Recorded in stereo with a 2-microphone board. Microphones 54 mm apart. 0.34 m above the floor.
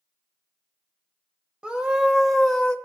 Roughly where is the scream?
Centre.